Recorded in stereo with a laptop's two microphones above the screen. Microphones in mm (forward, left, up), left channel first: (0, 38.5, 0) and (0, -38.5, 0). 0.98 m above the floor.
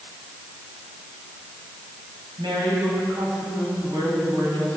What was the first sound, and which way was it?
A woman speaking, 80° right.